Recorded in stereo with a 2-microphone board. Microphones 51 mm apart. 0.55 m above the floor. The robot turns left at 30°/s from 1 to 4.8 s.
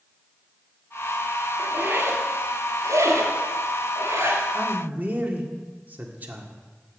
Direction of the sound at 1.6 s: 30° right (ahead or behind).